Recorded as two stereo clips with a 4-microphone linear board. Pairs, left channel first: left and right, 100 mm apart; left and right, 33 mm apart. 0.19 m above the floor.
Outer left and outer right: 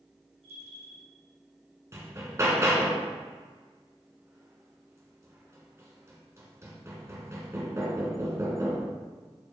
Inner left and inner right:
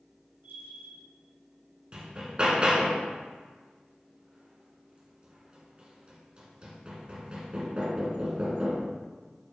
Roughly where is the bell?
Right.